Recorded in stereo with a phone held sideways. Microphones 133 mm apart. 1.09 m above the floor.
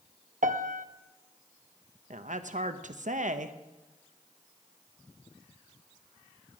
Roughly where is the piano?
Right.